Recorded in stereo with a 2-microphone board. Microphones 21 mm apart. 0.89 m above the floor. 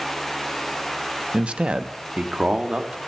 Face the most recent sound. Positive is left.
turn(degrees=-50)  # may be behind; listen again after turning